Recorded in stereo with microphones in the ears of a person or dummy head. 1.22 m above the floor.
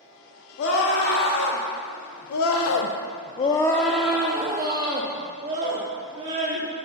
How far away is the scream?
About 1.8 m.